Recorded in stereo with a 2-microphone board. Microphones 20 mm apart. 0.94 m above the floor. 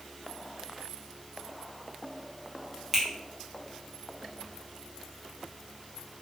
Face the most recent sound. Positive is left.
turn(degrees=-20)  # may be behind; listen again after turning